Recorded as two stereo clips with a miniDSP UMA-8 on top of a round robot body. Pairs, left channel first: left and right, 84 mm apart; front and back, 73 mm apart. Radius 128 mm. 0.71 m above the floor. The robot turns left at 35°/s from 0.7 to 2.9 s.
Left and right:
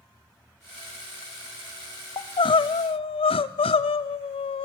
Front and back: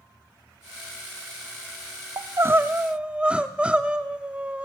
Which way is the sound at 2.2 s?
130° left.